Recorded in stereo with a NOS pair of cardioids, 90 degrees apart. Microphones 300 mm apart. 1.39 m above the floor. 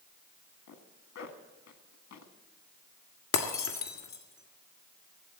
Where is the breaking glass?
65° left, 1.9 m.